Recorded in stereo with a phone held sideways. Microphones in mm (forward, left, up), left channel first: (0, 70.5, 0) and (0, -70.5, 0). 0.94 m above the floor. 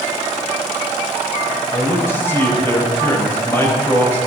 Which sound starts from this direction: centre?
A man speaking, at 1.7 s.